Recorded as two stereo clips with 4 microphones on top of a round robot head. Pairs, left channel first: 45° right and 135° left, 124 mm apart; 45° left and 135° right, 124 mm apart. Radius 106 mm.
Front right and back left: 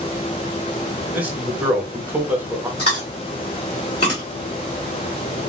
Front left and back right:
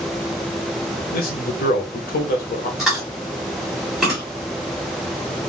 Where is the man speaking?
55° left, 0.8 m.